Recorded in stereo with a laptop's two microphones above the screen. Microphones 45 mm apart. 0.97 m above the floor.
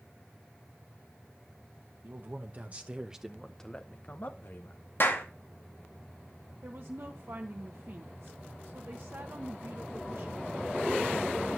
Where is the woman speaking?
50° right (ahead or behind), 1.1 m.